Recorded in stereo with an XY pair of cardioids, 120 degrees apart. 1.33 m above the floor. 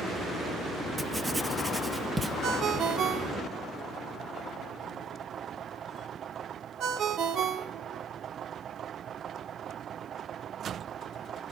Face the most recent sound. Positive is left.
turn(degrees=-60)